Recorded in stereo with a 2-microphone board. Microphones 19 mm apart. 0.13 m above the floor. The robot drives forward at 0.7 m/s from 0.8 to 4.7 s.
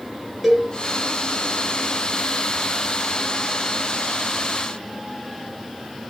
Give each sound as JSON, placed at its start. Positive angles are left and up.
{"t": 0.4, "sound": "a cowbell", "side_deg": 0, "distance_m": 2.5}